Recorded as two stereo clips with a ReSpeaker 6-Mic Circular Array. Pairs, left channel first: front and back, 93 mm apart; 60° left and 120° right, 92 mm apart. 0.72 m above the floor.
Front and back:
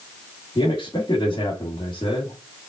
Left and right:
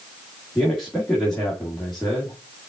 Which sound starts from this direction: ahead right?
A man speaking, at 0.6 s.